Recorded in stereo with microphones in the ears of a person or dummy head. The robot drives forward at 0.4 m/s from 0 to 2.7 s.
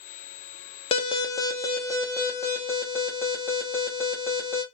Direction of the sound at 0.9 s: 20° left (ahead or behind).